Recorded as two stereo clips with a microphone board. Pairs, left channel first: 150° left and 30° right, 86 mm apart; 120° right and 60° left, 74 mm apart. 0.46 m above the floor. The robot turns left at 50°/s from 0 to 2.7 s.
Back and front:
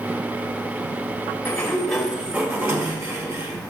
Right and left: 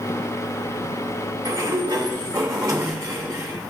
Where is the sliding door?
85° left, 1.5 m; by 3.7 s 20° left, 1.5 m.